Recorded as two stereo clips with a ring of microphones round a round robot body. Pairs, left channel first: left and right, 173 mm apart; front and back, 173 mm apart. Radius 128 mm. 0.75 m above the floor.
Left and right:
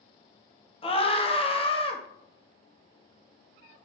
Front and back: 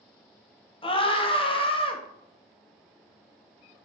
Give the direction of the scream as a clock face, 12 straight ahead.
10 o'clock.